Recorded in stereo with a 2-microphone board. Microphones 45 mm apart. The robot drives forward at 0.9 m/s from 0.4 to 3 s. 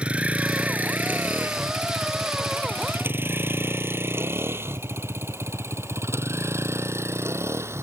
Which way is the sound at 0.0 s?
25° right (ahead or behind).